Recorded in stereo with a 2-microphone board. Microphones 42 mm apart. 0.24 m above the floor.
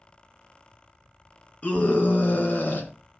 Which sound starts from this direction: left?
A scream, at 1.6 s.